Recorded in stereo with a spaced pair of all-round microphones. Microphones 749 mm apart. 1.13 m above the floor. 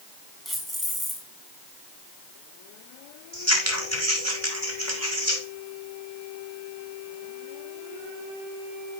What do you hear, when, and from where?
0.5 s keys jangling: centre (ahead or behind), 6.5 m
3.3 s scissors: 20° right (ahead or behind), 5 m